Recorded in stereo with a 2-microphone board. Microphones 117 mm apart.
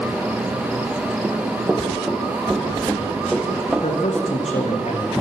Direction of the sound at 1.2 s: 20° right (ahead or behind).